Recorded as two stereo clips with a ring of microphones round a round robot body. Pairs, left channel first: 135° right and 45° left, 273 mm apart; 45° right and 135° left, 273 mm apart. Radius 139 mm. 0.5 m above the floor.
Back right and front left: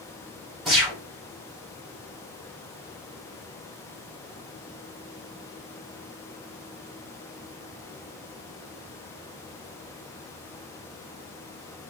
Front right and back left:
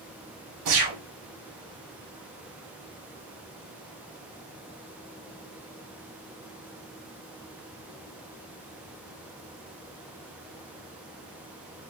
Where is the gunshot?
135° left, 2.5 m.